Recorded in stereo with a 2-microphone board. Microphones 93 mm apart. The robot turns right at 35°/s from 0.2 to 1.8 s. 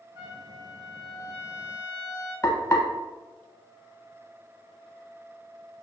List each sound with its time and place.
0.1 s a trumpet: 90° right, 1.6 m; by 2.3 s 30° right, 1.6 m
2.4 s frying: 35° left (ahead or behind), 0.5 m